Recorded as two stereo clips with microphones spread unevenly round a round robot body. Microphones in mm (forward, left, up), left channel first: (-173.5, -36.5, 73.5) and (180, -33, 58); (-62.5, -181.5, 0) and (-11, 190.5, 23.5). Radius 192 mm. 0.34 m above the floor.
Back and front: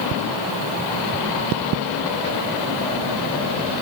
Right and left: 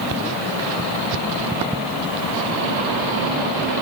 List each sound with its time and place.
Only background noise.